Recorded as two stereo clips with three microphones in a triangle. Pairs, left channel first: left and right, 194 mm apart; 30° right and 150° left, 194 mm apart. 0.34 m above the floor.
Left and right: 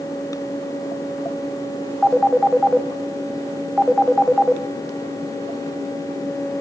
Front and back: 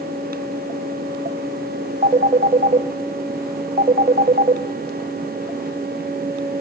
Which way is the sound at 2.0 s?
Straight behind.